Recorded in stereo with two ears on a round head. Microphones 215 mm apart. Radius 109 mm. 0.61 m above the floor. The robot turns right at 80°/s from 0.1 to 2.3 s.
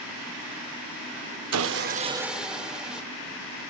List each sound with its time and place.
1.5 s sawing: 65° right, 0.6 m; by 3.0 s 5° right, 0.6 m